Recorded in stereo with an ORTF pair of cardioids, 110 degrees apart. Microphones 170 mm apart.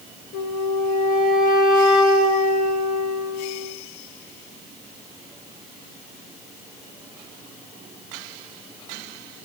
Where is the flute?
50° left, 2.5 m.